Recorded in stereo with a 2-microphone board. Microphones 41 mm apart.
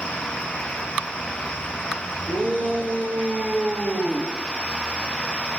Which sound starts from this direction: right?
A shout, at 2.3 s.